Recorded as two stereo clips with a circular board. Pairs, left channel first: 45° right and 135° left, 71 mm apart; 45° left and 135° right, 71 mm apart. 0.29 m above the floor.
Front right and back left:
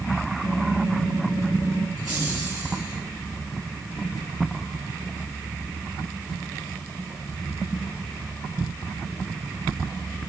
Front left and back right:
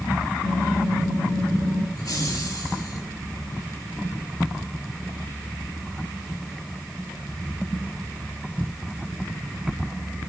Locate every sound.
0.4 s typing on a keyboard: 30° left, 2.5 m
2.0 s laughter: 60° left, 5.5 m